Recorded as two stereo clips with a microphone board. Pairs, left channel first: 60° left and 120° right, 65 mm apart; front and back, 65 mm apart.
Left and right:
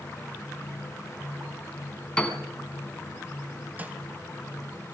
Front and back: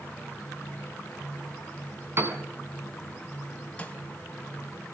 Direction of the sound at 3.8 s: 65° right.